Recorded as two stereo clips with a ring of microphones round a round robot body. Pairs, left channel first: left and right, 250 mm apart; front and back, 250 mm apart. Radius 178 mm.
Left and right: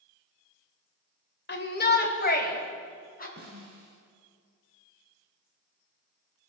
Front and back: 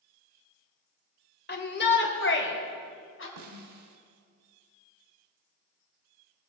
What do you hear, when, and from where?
1.5 s a shout: 45° left, 2.5 m; by 3.3 s 35° left, 4.5 m
3.4 s a snare drum: 155° right, 1.1 m